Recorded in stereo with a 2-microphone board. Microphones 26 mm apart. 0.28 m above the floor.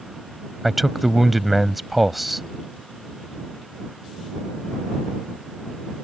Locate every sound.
0.6 s a man speaking: 5° right (ahead or behind)